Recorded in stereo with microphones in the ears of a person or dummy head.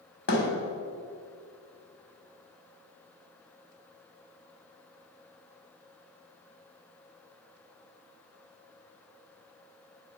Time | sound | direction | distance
0.3 | a thud | 60° left (ahead or behind) | 1.9 m